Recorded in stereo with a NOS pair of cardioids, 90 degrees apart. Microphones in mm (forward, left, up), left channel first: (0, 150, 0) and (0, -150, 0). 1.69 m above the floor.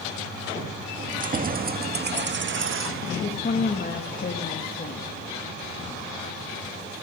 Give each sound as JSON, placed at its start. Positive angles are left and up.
{"t": 1.0, "sound": "keys jangling", "azimuth_deg": -25, "distance_m": 2.5}
{"t": 3.2, "sound": "a woman speaking", "azimuth_deg": 30, "distance_m": 2.5}